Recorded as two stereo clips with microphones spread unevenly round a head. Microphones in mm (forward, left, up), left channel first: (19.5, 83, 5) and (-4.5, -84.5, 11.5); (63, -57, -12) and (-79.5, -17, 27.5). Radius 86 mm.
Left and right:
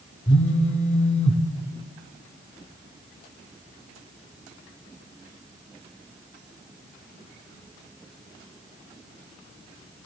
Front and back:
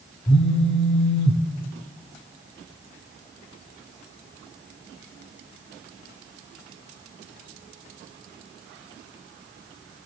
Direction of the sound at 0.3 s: 45° left.